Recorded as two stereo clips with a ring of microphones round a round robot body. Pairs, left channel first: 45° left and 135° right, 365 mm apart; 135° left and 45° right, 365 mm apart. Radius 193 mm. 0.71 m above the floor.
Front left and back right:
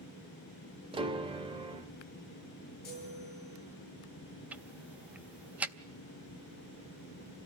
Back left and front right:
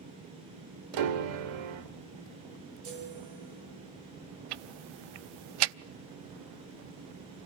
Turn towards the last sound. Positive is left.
turn(degrees=-50)